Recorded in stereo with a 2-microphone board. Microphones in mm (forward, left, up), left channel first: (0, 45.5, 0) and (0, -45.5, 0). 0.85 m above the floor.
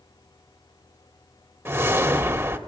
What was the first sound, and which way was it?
A whoosh, 25° right (ahead or behind).